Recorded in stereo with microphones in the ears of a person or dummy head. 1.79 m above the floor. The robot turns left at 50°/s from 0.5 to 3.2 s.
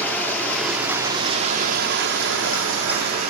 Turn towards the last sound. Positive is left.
turn(degrees=-130)